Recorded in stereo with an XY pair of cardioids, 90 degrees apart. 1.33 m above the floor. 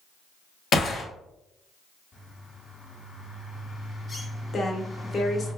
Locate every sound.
0.7 s a gunshot: 55° left, 1.0 m
2.1 s a bird: 40° left, 1.5 m
4.5 s a woman speaking: 45° left, 1.0 m